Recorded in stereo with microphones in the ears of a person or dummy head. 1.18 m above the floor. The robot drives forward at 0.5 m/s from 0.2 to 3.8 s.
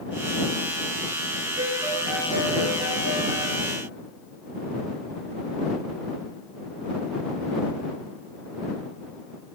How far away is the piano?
About 3 m.